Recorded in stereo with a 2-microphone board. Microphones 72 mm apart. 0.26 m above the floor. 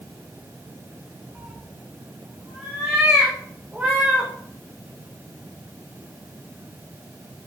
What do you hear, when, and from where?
1.4 s a cat meowing: 15° right (ahead or behind), 4 m; by 4.3 s 5° right (ahead or behind), 2.5 m